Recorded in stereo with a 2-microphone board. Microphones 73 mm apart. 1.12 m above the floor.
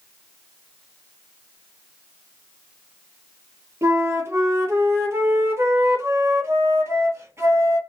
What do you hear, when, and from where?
3.8 s a flute: 35° right (ahead or behind), 1.4 m